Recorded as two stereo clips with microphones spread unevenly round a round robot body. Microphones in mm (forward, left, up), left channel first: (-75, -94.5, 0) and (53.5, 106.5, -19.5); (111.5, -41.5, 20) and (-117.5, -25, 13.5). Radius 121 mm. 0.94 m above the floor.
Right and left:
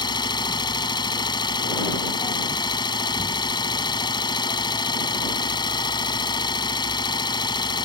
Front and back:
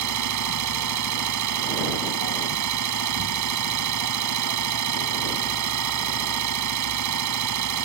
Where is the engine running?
165° left.